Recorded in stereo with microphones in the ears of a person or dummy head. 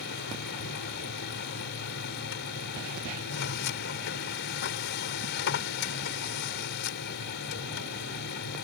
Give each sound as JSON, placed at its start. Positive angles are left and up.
{"t": 0.0, "sound": "a machine running", "side_deg": 65}